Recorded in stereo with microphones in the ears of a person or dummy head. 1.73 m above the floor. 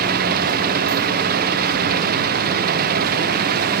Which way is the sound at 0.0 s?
55° right (ahead or behind).